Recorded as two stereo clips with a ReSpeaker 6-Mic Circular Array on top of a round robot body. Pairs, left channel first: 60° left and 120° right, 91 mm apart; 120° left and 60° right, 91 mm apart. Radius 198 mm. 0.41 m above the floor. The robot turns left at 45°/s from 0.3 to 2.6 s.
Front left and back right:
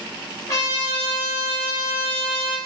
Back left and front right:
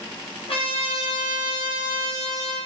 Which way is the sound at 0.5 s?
115° left.